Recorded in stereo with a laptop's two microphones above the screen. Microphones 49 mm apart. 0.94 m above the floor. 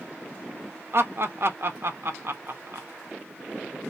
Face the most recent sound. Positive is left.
turn(degrees=-50)  # may be behind; listen again after turning